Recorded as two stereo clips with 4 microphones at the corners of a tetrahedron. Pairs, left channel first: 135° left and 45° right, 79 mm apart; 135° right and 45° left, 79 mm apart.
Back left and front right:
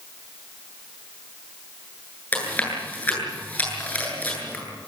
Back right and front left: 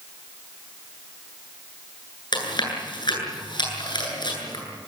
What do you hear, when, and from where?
2.3 s chewing: 155° right, 8.5 m